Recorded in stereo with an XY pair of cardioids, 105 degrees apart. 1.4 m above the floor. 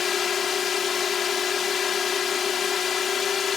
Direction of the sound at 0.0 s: 50° left.